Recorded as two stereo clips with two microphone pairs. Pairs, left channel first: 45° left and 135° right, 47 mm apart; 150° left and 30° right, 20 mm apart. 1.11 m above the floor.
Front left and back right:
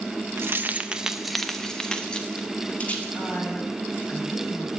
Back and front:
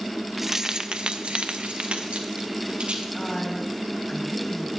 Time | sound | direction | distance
0.4 | keys jangling | 105° right | 0.7 m
3.1 | a woman speaking | 95° left | 6 m